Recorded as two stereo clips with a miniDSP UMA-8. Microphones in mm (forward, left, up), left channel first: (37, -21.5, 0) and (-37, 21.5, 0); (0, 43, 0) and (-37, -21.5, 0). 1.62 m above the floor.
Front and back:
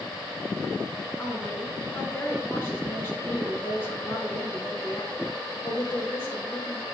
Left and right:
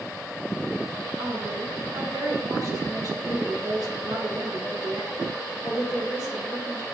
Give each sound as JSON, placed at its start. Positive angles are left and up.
{"t": 1.2, "sound": "a woman speaking", "azimuth_deg": -95, "distance_m": 4.5}